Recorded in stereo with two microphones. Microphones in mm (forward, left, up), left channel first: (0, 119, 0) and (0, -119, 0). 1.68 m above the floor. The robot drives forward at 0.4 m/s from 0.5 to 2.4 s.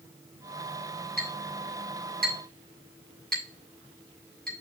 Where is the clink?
45° right (ahead or behind), 5 m.